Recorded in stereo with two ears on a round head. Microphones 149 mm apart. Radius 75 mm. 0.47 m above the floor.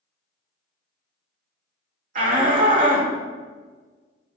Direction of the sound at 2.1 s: 50° right (ahead or behind).